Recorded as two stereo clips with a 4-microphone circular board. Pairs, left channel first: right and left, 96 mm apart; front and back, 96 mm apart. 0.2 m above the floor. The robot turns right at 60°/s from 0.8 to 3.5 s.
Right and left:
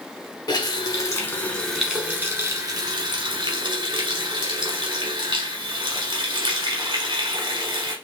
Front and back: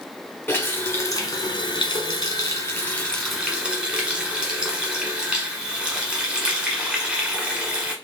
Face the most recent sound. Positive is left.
turn(degrees=105)